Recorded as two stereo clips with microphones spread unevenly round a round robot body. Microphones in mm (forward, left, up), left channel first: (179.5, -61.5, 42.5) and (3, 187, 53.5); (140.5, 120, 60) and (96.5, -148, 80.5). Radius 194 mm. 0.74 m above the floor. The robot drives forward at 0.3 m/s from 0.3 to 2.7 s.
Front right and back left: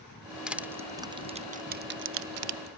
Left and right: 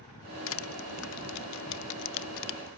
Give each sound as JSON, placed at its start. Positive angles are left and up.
{"t": 0.5, "sound": "crushing", "azimuth_deg": 40, "distance_m": 0.8}